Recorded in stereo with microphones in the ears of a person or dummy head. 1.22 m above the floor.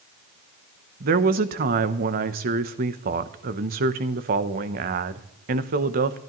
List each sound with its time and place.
1.0 s a woman speaking: 45° right (ahead or behind), 0.7 m